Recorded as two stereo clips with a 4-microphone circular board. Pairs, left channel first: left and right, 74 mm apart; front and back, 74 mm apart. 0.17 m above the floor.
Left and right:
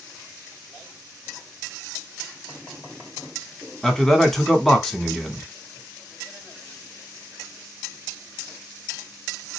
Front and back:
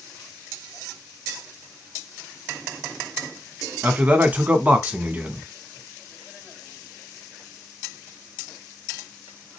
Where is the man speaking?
170° left, 1.0 m.